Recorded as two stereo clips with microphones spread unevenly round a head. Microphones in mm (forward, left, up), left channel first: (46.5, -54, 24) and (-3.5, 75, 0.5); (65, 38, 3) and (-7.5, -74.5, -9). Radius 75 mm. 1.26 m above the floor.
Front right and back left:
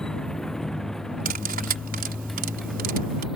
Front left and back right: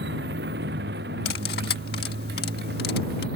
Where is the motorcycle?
155° right; by 3.4 s 160° right.